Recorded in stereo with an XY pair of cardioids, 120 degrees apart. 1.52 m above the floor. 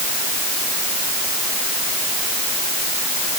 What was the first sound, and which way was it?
Only background noise.